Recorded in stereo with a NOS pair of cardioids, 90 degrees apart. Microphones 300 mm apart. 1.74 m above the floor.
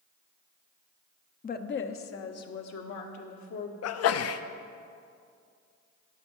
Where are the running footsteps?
No running footsteps in this recording.